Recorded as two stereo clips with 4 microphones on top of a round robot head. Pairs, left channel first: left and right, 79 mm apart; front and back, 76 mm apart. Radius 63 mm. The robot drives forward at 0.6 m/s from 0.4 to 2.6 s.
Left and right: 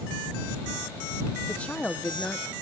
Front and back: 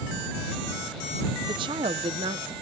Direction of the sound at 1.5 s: 170° left.